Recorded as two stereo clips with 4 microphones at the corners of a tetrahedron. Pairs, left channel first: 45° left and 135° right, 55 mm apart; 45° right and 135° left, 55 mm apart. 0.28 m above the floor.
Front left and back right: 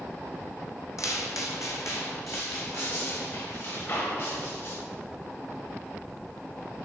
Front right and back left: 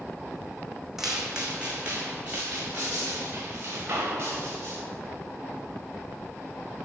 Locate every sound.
1.0 s footsteps: 50° left, 1.0 m; by 4.8 s 85° left, 3 m